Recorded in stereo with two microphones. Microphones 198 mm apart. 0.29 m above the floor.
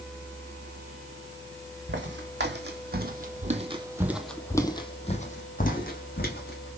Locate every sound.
1.9 s footsteps: 75° right (ahead or behind), 1.3 m; by 6.7 s 55° left (ahead or behind), 1.5 m